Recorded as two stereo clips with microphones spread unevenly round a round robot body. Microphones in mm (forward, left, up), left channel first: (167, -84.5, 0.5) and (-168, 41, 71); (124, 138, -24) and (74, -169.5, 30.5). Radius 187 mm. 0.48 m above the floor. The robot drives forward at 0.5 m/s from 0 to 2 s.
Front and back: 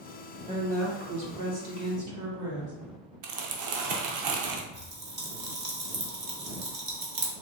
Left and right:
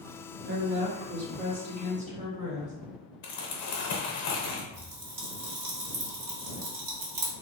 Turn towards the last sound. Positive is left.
turn(degrees=-135)